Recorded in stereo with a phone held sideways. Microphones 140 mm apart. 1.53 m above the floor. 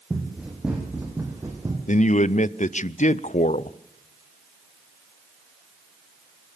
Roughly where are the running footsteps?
Centre.